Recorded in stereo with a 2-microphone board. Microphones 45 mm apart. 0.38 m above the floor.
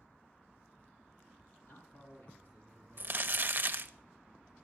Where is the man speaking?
65° left (ahead or behind), 4.5 m; by 3.7 s 60° left (ahead or behind), 5.5 m.